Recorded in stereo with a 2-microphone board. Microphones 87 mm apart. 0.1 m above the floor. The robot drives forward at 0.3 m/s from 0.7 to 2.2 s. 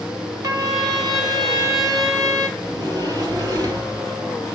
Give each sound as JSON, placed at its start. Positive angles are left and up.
{"t": 0.4, "sound": "a trumpet", "side_deg": -45, "distance_m": 2.0}
{"t": 2.6, "sound": "a sliding door", "side_deg": -50, "distance_m": 2.0}